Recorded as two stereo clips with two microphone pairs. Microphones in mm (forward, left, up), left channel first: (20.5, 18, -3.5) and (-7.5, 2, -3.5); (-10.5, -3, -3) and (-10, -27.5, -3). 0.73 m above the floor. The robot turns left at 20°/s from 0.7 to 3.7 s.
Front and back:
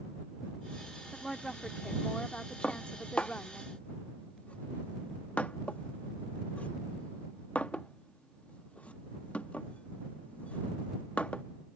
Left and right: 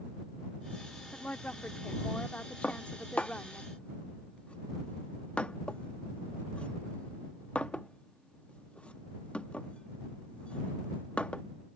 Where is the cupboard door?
I don't hear a cupboard door.